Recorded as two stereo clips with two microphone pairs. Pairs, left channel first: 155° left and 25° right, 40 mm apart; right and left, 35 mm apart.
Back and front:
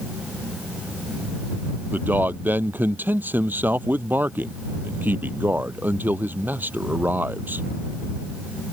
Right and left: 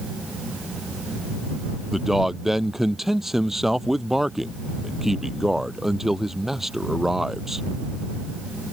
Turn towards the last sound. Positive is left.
turn(degrees=10)